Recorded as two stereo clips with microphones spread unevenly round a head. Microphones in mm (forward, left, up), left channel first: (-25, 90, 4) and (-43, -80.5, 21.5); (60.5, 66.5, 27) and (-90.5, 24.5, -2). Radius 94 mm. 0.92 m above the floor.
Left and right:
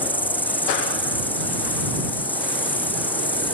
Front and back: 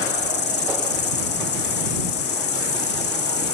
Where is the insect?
10° left.